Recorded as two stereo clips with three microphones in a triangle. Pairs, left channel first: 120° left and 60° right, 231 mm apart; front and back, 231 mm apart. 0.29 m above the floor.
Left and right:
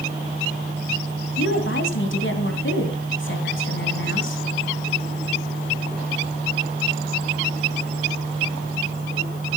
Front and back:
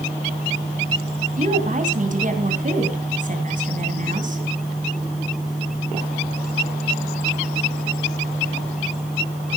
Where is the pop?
No pop in this recording.